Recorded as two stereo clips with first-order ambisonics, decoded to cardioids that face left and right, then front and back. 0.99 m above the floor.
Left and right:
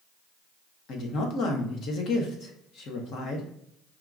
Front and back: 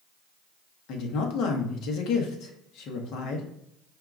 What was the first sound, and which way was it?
A woman speaking, 40° left.